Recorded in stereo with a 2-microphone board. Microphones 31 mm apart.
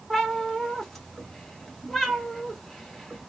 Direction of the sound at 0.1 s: 5° left (ahead or behind).